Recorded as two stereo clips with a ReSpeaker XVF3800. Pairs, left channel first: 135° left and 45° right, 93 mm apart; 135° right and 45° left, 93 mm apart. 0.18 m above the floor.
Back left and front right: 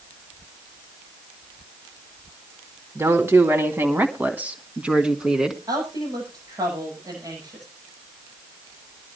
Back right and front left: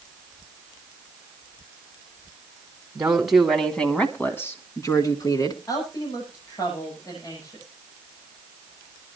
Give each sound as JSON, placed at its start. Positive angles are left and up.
{"t": 3.0, "sound": "a woman speaking", "azimuth_deg": -25, "distance_m": 1.7}
{"t": 5.7, "sound": "a woman speaking", "azimuth_deg": -90, "distance_m": 9.5}